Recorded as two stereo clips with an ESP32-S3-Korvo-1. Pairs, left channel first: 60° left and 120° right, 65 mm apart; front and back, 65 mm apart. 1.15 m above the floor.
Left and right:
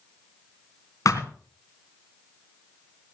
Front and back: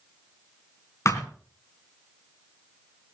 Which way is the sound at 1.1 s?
35° left.